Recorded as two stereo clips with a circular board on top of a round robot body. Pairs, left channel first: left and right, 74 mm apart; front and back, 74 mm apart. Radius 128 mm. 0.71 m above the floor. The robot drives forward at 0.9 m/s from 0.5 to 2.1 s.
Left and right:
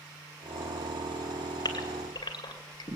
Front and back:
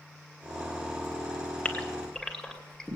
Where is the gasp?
70° left, 2.5 m; by 3.0 s 80° left, 2.5 m.